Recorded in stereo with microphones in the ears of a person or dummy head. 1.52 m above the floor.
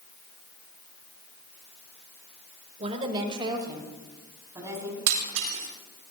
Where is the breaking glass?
70° right (ahead or behind), 6 m.